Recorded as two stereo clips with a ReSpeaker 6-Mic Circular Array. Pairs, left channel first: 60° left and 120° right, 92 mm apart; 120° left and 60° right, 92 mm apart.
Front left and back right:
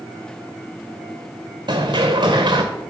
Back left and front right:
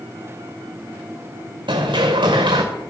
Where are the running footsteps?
90° right, 1.1 m.